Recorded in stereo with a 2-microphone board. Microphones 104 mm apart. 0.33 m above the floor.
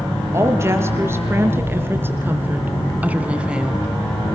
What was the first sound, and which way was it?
A woman speaking, 25° right (ahead or behind).